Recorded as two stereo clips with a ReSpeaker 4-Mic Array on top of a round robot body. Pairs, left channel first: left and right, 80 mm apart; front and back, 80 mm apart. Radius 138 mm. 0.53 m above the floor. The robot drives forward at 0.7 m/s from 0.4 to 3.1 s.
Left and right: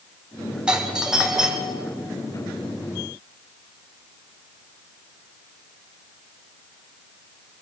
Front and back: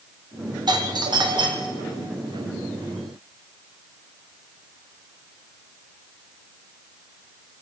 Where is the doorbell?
165° right, 2.5 m; by 1.9 s 170° right, 3 m.